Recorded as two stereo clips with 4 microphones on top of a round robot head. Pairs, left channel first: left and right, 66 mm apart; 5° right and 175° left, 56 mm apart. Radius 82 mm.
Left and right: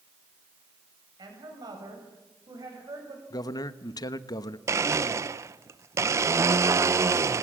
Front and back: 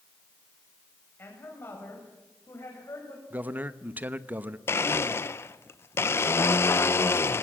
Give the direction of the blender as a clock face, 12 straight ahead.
2 o'clock.